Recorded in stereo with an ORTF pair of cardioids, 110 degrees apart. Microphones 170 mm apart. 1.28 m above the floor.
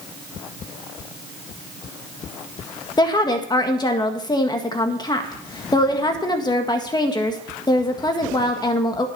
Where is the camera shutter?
No camera shutter in this recording.